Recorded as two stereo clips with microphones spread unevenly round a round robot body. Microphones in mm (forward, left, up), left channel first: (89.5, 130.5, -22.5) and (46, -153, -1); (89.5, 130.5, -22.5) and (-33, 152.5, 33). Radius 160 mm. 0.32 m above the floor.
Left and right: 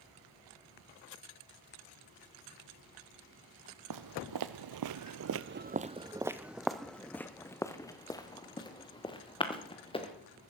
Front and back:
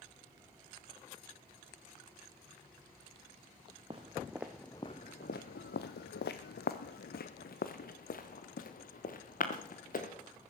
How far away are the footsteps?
About 0.8 m.